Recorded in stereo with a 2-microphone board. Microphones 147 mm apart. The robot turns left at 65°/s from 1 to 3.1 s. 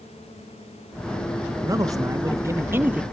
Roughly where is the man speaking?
Right.